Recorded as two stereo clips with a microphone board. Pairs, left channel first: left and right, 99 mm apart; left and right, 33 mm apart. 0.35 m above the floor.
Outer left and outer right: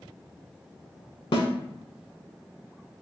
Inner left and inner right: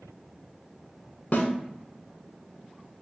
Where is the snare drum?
60° left (ahead or behind), 0.7 m.